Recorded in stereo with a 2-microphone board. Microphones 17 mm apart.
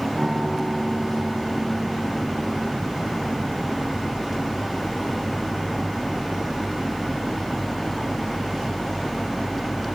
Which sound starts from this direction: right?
A guitar, at 0.1 s.